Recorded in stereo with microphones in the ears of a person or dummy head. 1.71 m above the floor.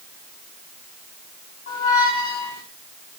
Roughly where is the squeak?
Left.